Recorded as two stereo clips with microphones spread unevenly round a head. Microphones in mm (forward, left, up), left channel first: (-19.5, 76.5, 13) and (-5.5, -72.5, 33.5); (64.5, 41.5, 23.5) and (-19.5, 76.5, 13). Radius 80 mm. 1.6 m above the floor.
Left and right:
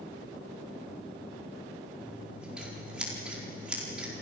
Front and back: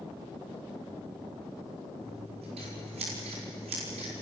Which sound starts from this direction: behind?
Scissors, at 2.0 s.